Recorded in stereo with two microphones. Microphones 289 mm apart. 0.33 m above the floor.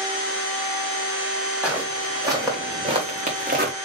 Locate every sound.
1.6 s footsteps: 5° right (ahead or behind), 2 m; by 3.7 s 35° right (ahead or behind), 1.2 m